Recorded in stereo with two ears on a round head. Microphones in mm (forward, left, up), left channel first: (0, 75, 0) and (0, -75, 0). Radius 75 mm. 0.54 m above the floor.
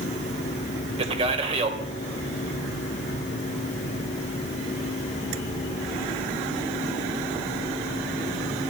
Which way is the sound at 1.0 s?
35° right (ahead or behind).